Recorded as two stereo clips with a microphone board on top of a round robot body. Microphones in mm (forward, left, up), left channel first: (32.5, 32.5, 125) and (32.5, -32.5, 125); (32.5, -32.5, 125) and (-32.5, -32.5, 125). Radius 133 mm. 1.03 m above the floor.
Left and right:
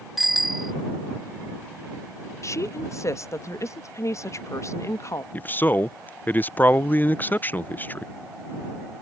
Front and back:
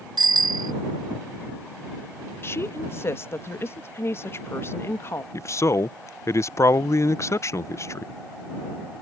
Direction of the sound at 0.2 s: Straight behind.